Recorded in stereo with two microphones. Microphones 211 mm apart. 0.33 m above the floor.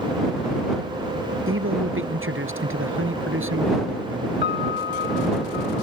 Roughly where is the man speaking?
Right.